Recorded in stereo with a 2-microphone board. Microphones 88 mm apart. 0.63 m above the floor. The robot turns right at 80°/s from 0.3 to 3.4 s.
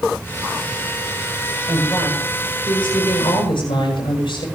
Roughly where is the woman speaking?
Ahead right.